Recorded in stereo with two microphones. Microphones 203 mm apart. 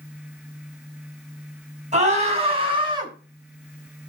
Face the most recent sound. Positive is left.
turn(degrees=-20)  # may be behind; listen again after turning